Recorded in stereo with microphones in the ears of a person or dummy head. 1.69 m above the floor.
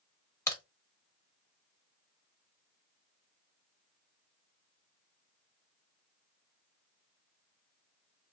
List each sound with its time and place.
0.5 s a crack: 15° left (ahead or behind), 1.2 m